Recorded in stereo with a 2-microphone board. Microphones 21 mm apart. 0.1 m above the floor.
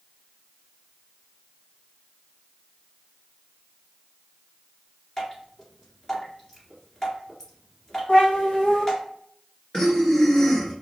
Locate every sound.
5.2 s dripping: 25° left (ahead or behind), 1.8 m
8.1 s a cat meowing: 75° left (ahead or behind), 1.8 m
9.7 s breathing: 30° left (ahead or behind), 1.0 m